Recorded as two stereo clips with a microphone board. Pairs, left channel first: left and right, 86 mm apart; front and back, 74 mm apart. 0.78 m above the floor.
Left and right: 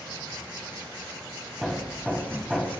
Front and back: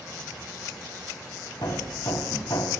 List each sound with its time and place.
1.6 s hammering: 5° right, 2 m